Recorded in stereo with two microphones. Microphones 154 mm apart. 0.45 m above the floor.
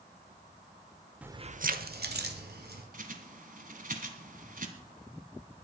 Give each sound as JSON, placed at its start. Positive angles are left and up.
{"t": 1.2, "sound": "keys jangling", "side_deg": -5, "distance_m": 0.6}
{"t": 2.9, "sound": "a bird", "side_deg": -55, "distance_m": 1.5}